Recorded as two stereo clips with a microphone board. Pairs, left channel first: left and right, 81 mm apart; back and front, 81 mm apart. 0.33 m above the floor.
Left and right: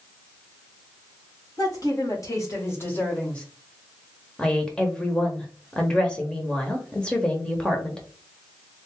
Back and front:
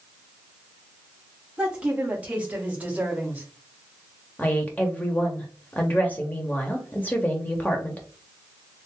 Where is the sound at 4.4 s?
150° left, 0.9 m.